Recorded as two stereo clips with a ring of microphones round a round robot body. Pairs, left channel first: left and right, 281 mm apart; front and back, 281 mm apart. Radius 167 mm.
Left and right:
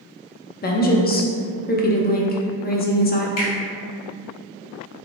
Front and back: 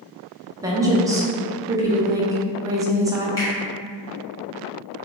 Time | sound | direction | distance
0.6 | a woman speaking | 110° left | 0.6 m
3.4 | a finger snap | 80° left | 1.8 m